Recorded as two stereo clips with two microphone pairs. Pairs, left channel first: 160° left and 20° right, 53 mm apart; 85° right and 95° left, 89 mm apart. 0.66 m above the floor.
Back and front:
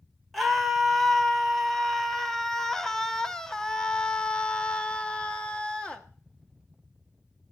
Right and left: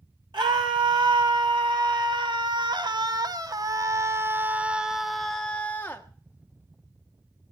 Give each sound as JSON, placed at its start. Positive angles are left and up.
{"t": 0.3, "sound": "a scream", "azimuth_deg": 70, "distance_m": 3.0}